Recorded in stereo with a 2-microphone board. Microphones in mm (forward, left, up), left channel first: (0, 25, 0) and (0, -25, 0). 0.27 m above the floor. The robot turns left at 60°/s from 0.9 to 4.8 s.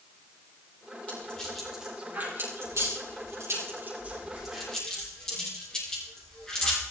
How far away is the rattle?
About 9.5 m.